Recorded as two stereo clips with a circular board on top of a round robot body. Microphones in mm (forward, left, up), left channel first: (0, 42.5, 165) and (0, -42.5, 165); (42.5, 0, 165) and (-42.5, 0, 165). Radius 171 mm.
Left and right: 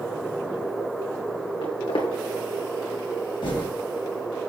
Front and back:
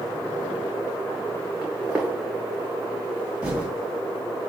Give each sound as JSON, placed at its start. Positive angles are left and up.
{"t": 1.6, "sound": "footsteps", "azimuth_deg": 105, "distance_m": 2.5}
{"t": 3.4, "sound": "typing on a keyboard", "azimuth_deg": 105, "distance_m": 2.5}